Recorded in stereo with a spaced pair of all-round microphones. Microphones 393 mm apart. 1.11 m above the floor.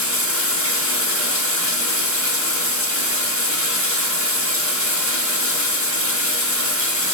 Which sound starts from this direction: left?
Running water, at 0.0 s.